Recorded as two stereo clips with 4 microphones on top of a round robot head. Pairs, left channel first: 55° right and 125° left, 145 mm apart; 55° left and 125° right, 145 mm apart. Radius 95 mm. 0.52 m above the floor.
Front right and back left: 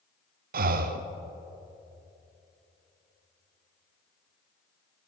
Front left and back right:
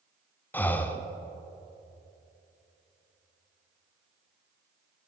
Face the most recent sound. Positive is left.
turn(degrees=135)